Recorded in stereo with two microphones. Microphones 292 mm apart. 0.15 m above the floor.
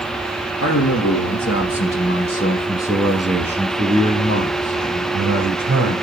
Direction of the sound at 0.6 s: 60° left (ahead or behind).